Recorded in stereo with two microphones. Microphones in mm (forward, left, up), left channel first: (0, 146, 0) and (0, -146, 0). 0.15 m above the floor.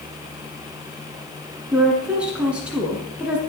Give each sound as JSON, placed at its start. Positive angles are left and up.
{"t": 1.7, "sound": "a woman speaking", "side_deg": -5, "distance_m": 1.4}